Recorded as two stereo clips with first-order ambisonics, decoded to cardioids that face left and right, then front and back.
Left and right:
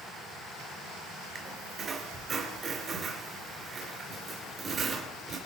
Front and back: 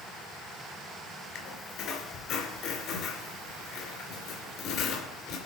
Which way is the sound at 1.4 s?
35° right.